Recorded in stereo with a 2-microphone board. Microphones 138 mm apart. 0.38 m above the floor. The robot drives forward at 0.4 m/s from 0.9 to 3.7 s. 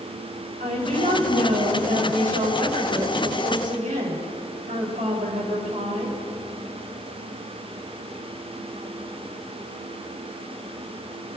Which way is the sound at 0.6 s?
75° right (ahead or behind).